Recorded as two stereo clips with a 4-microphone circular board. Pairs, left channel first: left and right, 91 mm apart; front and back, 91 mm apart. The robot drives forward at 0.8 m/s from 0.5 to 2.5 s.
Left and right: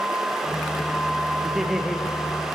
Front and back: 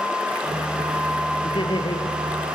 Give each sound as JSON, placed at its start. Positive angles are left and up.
{"t": 1.4, "sound": "laughter", "azimuth_deg": -5, "distance_m": 2.5}